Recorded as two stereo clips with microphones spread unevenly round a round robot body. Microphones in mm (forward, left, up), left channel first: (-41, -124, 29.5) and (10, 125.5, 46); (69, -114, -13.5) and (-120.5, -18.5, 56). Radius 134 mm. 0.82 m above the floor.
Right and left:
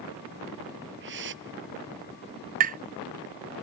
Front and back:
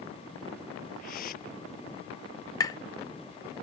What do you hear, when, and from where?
1.0 s a whoosh: 30° left
2.6 s tapping: 25° left